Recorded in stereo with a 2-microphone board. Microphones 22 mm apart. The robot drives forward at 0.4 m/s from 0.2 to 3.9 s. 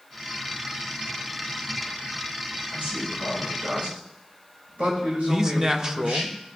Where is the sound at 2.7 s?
70° right (ahead or behind), 4 m; by 6.3 s 75° right (ahead or behind), 4 m.